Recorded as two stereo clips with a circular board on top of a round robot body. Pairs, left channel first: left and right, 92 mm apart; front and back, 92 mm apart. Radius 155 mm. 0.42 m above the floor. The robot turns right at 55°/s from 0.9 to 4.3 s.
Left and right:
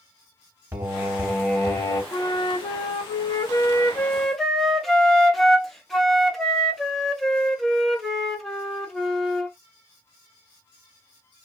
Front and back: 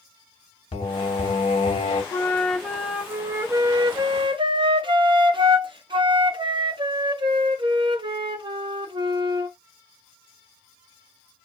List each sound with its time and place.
0.7 s singing: 30° right, 0.9 m; by 2.0 s 30° left, 0.9 m
2.1 s a flute: 55° left, 0.8 m; by 9.6 s 175° left, 0.8 m